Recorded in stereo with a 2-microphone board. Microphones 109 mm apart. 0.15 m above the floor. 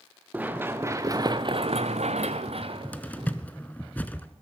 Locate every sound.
0.3 s running footsteps: 15° right (ahead or behind), 1.6 m; by 3.3 s 45° right (ahead or behind), 1.6 m
2.5 s a cupboard door: 15° left (ahead or behind), 0.6 m